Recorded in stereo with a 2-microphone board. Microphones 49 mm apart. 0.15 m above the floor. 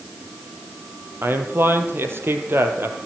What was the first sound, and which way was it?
A man speaking, 50° right (ahead or behind).